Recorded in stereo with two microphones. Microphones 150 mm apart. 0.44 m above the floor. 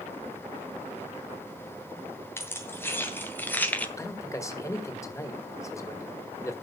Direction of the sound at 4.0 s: 20° left (ahead or behind).